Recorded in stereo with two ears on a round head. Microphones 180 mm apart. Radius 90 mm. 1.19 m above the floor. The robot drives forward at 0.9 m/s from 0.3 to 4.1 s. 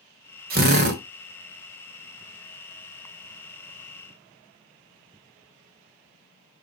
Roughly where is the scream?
I don't hear a scream.